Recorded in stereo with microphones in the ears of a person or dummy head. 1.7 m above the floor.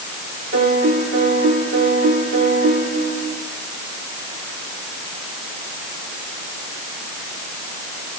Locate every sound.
0.5 s a piano: 50° right (ahead or behind), 4.5 m